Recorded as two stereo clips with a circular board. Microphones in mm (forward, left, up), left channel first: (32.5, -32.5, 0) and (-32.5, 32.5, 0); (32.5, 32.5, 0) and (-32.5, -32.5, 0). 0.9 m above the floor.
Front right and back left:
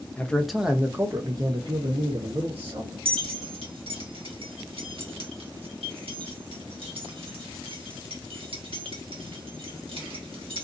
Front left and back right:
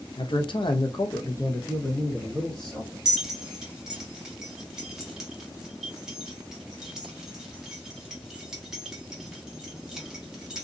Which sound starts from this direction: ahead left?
A man speaking, at 0.2 s.